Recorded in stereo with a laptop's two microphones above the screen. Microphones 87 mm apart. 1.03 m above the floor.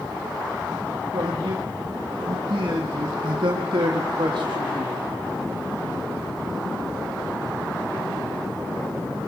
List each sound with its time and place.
1.1 s a man speaking: 75° right (ahead or behind), 1.9 m